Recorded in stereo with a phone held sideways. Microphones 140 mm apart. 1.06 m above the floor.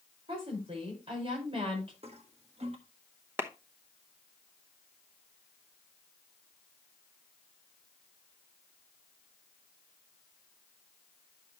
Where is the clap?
15° right (ahead or behind), 0.9 m.